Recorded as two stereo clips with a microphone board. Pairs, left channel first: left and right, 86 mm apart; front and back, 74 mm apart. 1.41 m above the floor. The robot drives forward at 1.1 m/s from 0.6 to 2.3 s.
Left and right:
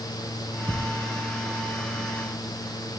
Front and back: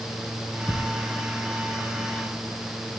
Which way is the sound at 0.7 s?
120° right.